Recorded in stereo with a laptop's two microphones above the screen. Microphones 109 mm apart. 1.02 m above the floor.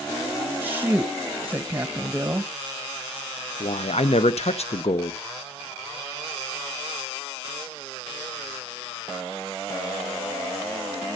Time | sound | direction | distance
0.6 | a woman speaking | 20° right (ahead or behind) | 1.1 m
3.6 | a man speaking | 70° left (ahead or behind) | 0.7 m